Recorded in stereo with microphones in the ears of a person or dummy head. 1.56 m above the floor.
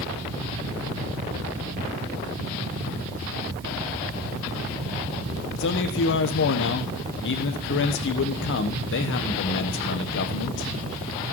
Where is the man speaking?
60° left (ahead or behind), 1.3 m.